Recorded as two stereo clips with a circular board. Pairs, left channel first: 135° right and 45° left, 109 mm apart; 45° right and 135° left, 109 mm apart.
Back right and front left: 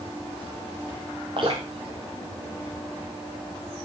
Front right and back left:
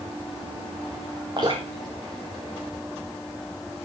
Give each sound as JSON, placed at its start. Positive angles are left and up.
{"t": 1.4, "sound": "dripping", "azimuth_deg": 85, "distance_m": 5.5}